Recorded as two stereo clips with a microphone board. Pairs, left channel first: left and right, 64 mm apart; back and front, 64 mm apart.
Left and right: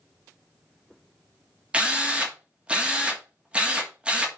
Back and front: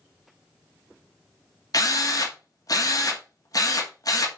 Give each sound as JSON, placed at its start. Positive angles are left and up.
{"t": 1.7, "sound": "a drill", "azimuth_deg": -160, "distance_m": 2.5}